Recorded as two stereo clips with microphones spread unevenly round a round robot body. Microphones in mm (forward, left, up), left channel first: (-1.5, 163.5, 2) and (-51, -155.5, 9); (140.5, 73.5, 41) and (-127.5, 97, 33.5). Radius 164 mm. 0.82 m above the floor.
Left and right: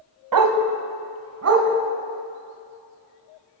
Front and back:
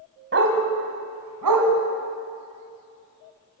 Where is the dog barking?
125° right, 1.8 m; by 1.7 s 150° right, 3 m.